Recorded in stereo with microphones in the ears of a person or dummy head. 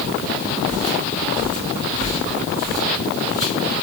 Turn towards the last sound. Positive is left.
turn(degrees=-10)  # may be behind; listen again after turning